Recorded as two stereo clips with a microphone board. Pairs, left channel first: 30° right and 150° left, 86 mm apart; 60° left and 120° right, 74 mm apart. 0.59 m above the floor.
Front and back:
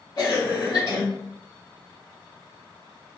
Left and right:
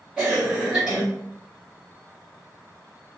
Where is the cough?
45° right, 1.0 m.